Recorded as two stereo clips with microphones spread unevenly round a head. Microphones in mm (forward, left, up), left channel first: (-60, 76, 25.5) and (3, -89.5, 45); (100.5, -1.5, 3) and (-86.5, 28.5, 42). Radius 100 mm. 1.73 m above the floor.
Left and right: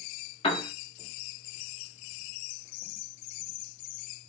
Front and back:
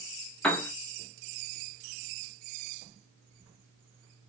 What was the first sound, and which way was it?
A piano, 100° left.